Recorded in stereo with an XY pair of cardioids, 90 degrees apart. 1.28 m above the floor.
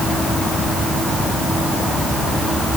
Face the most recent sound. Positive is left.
No sound to turn to.